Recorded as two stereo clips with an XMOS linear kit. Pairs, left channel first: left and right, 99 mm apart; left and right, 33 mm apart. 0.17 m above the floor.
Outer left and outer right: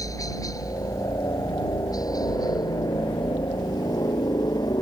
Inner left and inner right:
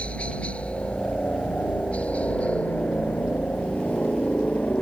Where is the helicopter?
35° left (ahead or behind); by 4.8 s 45° left (ahead or behind).